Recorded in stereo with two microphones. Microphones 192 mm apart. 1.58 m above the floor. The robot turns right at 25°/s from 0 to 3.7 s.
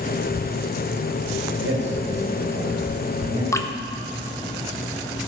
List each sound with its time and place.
1.6 s a man speaking: 70° right (ahead or behind), 2 m; by 3.4 s 25° right (ahead or behind), 2 m
3.5 s dripping: 15° left (ahead or behind), 0.5 m; by 3.7 s 10° left (ahead or behind), 0.5 m